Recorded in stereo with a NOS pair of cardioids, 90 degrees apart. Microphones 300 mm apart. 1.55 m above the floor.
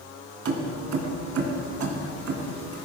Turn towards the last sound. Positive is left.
turn(degrees=-55)